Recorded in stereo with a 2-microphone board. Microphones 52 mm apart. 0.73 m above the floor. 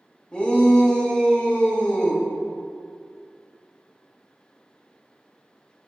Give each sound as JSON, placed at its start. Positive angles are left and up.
{"t": 0.3, "sound": "a shout", "side_deg": 20, "distance_m": 1.1}